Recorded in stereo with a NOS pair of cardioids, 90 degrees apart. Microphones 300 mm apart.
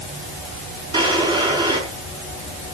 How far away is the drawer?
About 6 m.